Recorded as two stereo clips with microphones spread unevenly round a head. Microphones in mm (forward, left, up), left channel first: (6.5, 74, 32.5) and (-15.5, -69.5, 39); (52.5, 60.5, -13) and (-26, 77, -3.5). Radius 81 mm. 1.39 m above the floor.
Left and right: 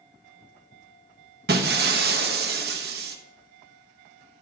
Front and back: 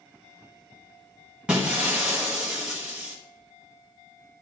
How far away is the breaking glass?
About 1.0 m.